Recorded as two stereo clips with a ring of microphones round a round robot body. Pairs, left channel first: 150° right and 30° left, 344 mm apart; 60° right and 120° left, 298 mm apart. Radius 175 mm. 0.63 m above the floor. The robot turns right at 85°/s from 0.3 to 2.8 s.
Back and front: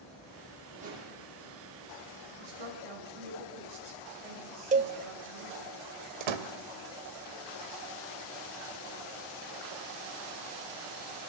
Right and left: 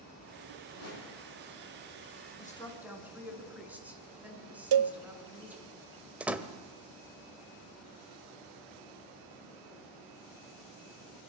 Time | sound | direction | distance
0.7 | a whoosh | 55° right | 9.5 m
2.4 | a woman speaking | straight ahead | 7.5 m
4.7 | a cowbell | 100° left | 1.1 m
6.2 | a door slam | 35° left | 2.5 m